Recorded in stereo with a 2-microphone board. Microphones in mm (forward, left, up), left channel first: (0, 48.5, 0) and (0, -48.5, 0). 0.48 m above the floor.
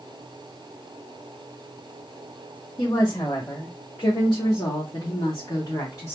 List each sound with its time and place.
2.8 s a woman speaking: 40° left (ahead or behind), 1.5 m; by 6.1 s 35° left (ahead or behind), 1.8 m